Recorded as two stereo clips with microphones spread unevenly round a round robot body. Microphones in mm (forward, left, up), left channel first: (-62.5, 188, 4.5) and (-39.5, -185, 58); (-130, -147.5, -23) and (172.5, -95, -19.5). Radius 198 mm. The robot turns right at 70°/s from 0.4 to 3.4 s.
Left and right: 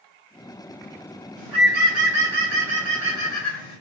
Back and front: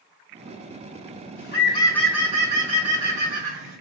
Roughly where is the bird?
Behind right.